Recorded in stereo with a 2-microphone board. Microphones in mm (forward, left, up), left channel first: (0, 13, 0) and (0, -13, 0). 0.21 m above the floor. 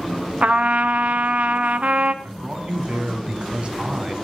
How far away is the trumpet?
About 0.7 m.